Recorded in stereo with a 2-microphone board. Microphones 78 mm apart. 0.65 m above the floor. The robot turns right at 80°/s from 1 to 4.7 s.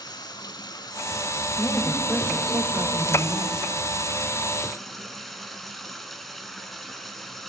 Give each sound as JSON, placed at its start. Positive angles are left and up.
{"t": 0.0, "sound": "running water", "azimuth_deg": 65, "distance_m": 1.6}
{"t": 1.6, "sound": "a woman speaking", "azimuth_deg": 155, "distance_m": 3.0}